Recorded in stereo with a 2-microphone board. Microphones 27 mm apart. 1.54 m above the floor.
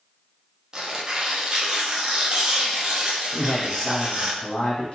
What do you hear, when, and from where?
0.7 s tearing paper: 30° right (ahead or behind), 0.6 m
3.3 s a man speaking: 50° left (ahead or behind), 1.2 m